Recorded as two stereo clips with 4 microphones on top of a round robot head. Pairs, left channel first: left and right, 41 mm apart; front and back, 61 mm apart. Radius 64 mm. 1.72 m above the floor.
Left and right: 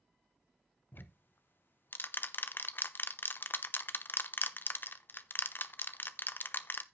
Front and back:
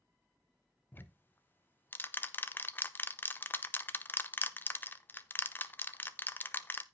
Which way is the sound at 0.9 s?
55° left.